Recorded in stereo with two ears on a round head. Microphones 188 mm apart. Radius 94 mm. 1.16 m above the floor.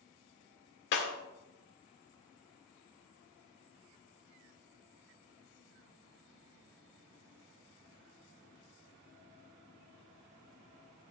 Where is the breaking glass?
55° left (ahead or behind), 2 m.